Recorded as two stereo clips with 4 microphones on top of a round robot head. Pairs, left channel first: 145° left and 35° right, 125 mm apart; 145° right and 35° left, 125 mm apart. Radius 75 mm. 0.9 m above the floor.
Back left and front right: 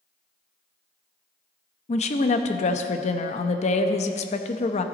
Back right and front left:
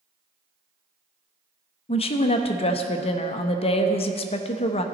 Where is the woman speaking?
175° left, 0.6 m.